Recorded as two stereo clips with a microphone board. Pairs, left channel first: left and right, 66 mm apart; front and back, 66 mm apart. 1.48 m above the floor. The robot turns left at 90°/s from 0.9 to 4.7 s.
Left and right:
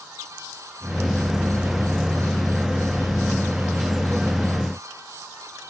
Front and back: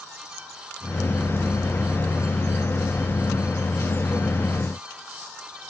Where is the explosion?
No explosion in this recording.